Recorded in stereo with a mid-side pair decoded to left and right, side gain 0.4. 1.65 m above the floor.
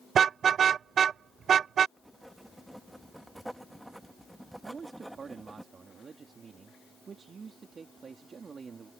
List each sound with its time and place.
0.1 s a car horn: 65° right
2.0 s writing: 10° right
4.6 s a man speaking: 50° right